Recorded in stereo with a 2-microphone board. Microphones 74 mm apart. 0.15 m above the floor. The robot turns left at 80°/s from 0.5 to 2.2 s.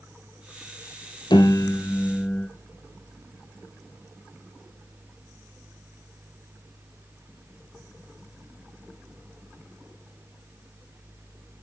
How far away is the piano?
About 1.0 m.